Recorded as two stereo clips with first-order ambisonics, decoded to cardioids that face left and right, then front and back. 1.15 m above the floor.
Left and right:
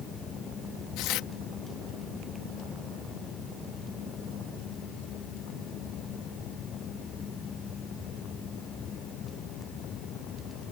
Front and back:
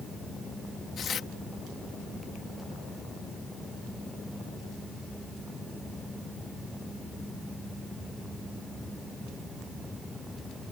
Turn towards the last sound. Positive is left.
turn(degrees=60)